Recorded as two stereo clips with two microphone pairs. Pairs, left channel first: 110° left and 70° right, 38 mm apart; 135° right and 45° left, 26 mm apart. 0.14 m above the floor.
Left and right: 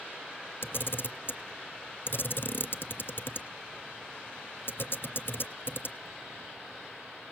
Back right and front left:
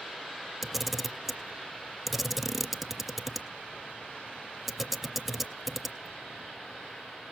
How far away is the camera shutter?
About 0.6 m.